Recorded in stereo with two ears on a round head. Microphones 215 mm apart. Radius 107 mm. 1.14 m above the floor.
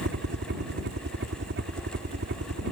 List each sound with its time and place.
0.0 s a helicopter: 45° right (ahead or behind)